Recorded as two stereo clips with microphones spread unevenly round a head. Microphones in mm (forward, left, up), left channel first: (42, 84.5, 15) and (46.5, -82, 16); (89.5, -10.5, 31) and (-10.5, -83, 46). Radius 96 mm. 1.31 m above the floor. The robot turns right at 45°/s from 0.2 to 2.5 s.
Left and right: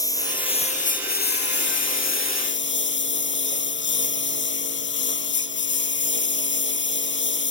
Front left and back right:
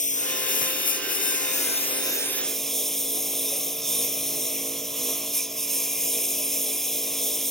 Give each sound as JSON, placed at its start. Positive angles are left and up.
{"t": 0.0, "sound": "a lawn mower", "azimuth_deg": 20}